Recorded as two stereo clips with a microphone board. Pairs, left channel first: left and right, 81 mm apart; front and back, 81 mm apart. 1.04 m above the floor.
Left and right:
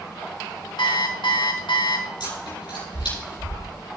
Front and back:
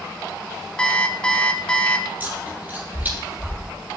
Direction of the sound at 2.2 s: 110° left.